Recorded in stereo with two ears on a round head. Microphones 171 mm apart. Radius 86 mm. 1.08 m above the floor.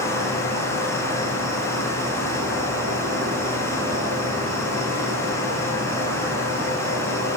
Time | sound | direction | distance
0.0 | an insect | 80° right | 2.5 m